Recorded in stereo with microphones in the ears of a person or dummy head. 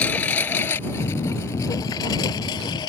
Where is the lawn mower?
10° left (ahead or behind); by 2.9 s 25° left (ahead or behind).